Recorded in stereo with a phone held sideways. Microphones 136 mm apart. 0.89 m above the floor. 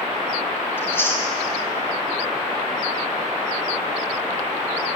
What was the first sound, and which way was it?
Chewing, 15° left (ahead or behind).